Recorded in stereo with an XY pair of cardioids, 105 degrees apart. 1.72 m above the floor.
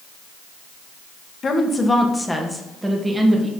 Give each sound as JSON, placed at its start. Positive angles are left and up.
{"t": 1.4, "sound": "a woman speaking", "azimuth_deg": 40, "distance_m": 1.4}